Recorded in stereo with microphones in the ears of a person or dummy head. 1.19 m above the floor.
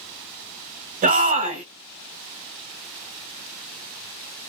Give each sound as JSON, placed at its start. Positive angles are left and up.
{"t": 1.0, "sound": "a shout", "side_deg": -50, "distance_m": 0.6}